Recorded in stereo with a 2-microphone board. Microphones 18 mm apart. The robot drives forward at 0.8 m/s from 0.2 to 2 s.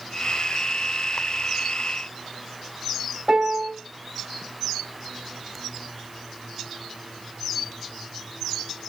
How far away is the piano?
About 4 m.